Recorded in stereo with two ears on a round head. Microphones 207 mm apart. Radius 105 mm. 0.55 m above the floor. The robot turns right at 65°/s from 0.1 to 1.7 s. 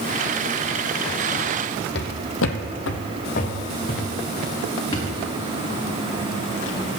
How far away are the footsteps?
About 1.2 m.